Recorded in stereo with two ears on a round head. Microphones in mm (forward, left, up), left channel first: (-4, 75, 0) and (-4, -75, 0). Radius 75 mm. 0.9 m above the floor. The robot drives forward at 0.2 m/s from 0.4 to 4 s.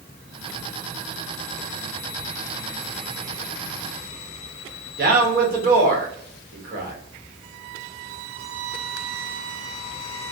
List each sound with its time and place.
5.0 s a man speaking: 55° right (ahead or behind), 1.0 m